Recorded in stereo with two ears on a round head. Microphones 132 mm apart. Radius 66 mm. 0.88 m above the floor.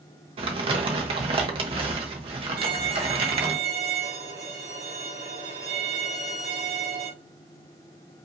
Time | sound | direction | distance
0.4 | crumpling | 40° right (ahead or behind) | 1.0 m
2.6 | a violin | 75° right (ahead or behind) | 2 m